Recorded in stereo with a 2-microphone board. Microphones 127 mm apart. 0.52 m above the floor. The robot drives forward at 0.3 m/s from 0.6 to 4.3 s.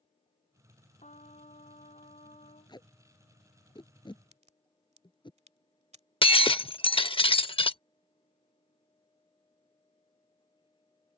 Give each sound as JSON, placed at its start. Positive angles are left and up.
{"t": 1.0, "sound": "a trumpet", "side_deg": 70}
{"t": 2.7, "sound": "tape being pulled", "side_deg": 35}
{"t": 4.3, "sound": "a crack", "side_deg": -60}
{"t": 6.2, "sound": "breaking glass", "side_deg": 45}